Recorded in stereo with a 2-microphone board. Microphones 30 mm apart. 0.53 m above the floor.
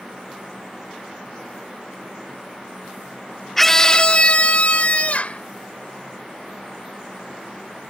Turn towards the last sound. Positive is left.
turn(degrees=55)  # may be behind; listen again after turning